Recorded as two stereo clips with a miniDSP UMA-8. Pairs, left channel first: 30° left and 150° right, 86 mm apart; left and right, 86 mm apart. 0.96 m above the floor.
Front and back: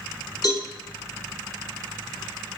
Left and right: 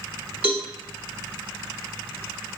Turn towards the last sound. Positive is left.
turn(degrees=-15)